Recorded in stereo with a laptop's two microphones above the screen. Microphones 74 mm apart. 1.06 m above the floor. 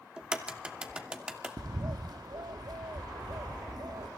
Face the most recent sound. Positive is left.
turn(degrees=-65)  # may be behind; listen again after turning